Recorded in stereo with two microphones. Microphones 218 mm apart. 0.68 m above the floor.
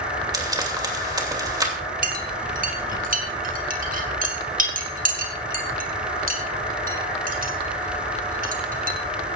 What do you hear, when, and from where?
0.3 s frying: 20° right (ahead or behind), 2.5 m
2.0 s a clink: 40° right (ahead or behind), 2 m